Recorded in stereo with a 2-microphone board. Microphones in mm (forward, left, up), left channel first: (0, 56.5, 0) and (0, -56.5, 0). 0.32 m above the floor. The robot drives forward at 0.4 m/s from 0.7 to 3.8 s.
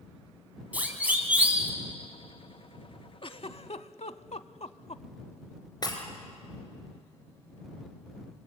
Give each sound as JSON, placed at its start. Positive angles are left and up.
{"t": 0.7, "sound": "a siren", "side_deg": -15, "distance_m": 3.0}
{"t": 3.2, "sound": "a giggle", "side_deg": 50, "distance_m": 0.7}
{"t": 5.8, "sound": "breaking glass", "side_deg": 35, "distance_m": 2.5}